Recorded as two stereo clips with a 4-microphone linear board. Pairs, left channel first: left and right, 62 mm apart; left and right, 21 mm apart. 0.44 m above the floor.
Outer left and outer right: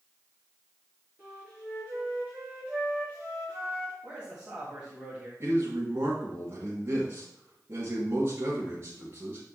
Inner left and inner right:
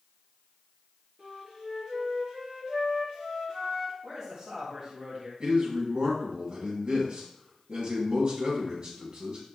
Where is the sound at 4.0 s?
20° right (ahead or behind), 3 m.